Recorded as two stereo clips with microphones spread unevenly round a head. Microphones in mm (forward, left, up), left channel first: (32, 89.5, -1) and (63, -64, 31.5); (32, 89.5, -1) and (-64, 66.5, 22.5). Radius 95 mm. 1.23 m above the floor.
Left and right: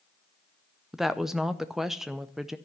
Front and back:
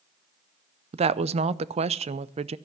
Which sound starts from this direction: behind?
A woman speaking, at 0.9 s.